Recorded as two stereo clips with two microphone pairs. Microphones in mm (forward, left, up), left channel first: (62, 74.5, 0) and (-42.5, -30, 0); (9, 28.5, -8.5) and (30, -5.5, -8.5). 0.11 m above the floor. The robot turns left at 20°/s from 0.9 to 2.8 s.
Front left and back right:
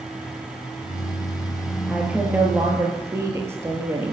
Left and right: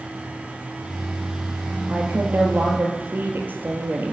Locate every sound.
1.9 s a woman speaking: 45° right, 2.5 m; by 4.1 s 65° right, 2.5 m